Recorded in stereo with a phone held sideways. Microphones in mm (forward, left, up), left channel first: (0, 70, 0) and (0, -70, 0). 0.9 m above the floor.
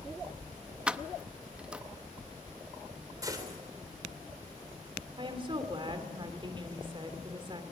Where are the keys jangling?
10° right (ahead or behind), 0.6 m.